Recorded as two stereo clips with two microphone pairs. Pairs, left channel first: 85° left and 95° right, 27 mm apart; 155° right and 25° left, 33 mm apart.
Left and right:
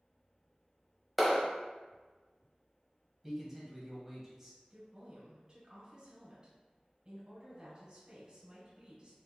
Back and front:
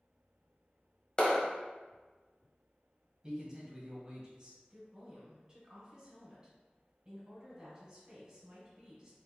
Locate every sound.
1.2 s a clap: 160° right, 1.2 m
3.2 s a man speaking: 30° right, 1.7 m
4.7 s a woman speaking: 40° right, 1.6 m